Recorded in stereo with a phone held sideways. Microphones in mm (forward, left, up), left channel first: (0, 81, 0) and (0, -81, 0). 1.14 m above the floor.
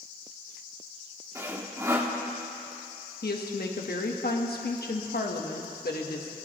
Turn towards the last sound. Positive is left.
turn(degrees=75)  # may be behind; listen again after turning